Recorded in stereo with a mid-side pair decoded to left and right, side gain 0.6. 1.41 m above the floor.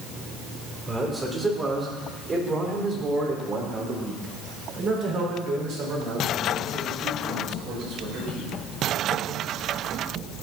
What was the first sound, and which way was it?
A man speaking, 20° right.